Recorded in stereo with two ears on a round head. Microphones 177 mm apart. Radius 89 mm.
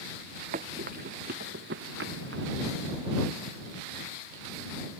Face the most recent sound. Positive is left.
turn(degrees=-75)  # may be behind; listen again after turning